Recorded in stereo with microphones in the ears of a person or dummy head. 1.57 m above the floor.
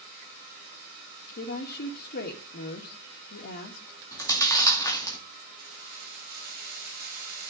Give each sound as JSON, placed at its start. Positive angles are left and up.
{"t": 1.4, "sound": "a woman speaking", "side_deg": 55, "distance_m": 2.0}
{"t": 4.1, "sound": "chewing", "side_deg": 20, "distance_m": 2.5}
{"t": 5.6, "sound": "keys jangling", "side_deg": -50, "distance_m": 5.5}